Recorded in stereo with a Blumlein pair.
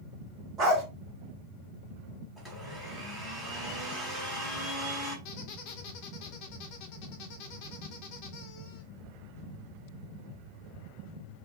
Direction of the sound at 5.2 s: 45° left.